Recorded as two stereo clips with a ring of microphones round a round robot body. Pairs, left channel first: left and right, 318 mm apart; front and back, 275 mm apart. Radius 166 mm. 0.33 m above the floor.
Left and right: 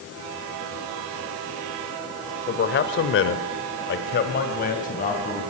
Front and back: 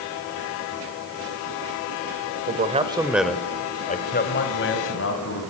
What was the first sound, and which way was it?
A man speaking, 140° left.